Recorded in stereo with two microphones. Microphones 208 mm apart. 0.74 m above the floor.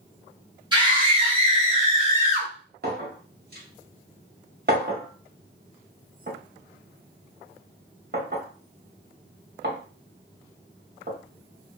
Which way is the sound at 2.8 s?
55° right (ahead or behind).